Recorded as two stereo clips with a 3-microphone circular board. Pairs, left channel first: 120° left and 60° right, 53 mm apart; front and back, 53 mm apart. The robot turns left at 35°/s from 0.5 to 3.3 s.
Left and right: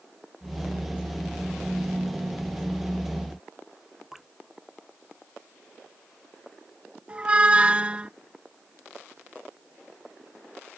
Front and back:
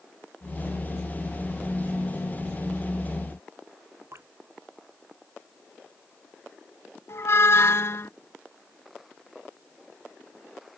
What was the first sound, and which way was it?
Dripping, 145° right.